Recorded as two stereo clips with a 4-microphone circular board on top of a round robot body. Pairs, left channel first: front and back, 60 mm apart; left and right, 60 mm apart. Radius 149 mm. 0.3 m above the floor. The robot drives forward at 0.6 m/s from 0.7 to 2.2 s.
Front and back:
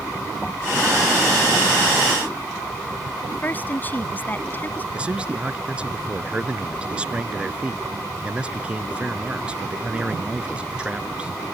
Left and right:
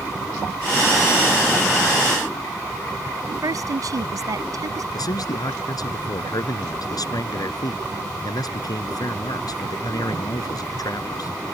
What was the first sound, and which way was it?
A woman speaking, 65° right.